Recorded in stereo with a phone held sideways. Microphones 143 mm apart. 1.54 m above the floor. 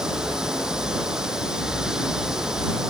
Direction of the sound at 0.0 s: 5° right (ahead or behind).